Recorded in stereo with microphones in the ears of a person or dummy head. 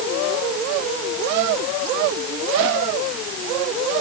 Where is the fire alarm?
I don't hear a fire alarm.